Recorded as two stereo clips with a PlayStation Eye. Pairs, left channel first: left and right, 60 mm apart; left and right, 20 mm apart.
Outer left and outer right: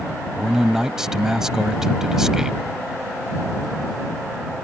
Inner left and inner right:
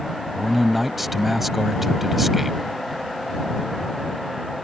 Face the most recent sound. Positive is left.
turn(degrees=-10)  # may be behind; listen again after turning